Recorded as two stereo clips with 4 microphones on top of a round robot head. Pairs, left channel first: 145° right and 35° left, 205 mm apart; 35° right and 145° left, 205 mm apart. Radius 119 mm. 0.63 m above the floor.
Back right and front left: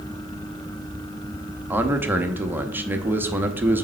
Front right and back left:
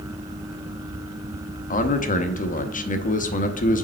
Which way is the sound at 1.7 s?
40° right.